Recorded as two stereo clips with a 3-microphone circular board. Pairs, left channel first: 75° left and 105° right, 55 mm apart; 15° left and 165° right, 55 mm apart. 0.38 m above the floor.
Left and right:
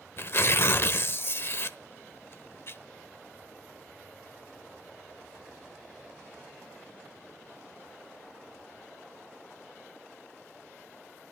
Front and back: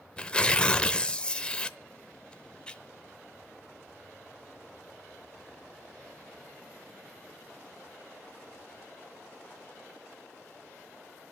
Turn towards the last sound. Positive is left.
turn(degrees=80)